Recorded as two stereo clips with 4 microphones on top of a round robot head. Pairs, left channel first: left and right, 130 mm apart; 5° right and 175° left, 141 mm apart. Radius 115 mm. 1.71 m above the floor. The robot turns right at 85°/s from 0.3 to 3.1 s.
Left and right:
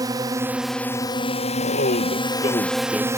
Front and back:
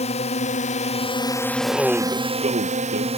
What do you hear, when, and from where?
0.0 s a drone: 35° right; by 3.2 s 155° right
1.6 s a man speaking: 60° left; by 3.1 s 175° right